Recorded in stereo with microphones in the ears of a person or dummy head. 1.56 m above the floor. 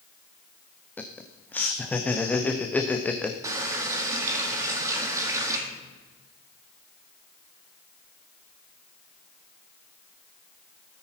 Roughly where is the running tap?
Centre.